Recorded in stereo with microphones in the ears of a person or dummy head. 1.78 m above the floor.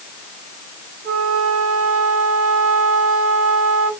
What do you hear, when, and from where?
1.0 s a flute: 50° right (ahead or behind), 1.4 m